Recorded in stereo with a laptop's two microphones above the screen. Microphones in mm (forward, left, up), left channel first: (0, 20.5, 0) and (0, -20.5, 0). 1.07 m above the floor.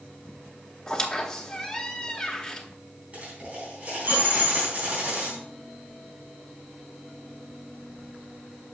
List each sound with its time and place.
0.9 s a squeak: 15° left (ahead or behind), 0.8 m
3.1 s a dropped coin: 35° right (ahead or behind), 3.5 m